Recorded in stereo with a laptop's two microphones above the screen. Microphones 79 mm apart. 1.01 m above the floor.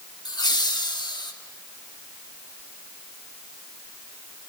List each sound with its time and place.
0.2 s laughter: 65° left (ahead or behind), 2 m; by 1.3 s 70° left (ahead or behind), 1.6 m